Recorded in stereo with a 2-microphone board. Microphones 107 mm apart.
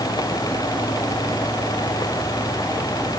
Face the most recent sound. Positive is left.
No sound to turn to.